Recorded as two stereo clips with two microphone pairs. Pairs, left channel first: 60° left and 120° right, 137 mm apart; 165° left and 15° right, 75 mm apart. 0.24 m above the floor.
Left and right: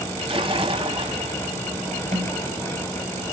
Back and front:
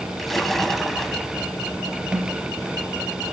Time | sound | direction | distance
0.2 | a splash | 105° right | 1.0 m
2.1 | a snare drum | 95° right | 3.5 m